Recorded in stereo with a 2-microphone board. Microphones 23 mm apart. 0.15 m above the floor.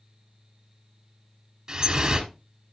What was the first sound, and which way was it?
Dripping, 25° right (ahead or behind).